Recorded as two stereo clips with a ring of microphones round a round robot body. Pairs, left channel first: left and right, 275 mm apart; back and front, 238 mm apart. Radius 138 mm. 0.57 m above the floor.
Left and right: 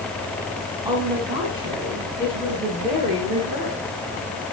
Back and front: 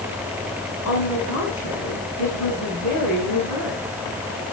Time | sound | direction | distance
0.8 | a woman speaking | 165° right | 6 m